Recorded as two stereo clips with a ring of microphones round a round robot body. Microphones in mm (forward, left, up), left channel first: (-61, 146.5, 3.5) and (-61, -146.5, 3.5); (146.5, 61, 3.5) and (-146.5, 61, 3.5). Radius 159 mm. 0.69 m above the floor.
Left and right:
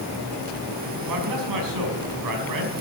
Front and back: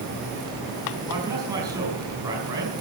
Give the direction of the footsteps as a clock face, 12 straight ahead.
I don't hear footsteps.